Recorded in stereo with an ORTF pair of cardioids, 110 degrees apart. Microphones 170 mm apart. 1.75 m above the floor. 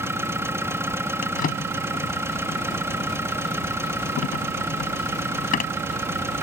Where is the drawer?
55° left.